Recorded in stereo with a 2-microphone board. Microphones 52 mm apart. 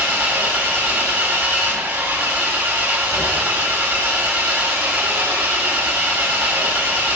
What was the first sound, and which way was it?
An engine running, 30° right (ahead or behind).